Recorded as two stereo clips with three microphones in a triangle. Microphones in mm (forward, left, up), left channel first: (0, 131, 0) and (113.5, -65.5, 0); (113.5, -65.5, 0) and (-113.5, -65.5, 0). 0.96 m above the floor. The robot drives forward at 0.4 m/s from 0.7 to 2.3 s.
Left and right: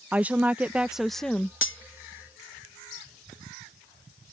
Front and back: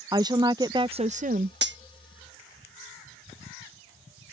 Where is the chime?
No chime in this recording.